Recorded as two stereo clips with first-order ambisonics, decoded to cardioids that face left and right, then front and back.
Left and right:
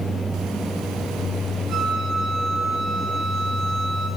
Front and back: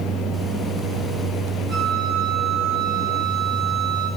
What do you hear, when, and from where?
1.7 s a flute: 150° right, 8 m